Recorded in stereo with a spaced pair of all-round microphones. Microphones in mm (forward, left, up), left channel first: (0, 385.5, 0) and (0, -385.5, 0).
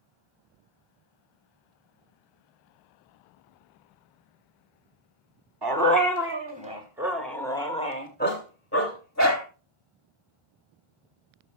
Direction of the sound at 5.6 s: 30° right (ahead or behind).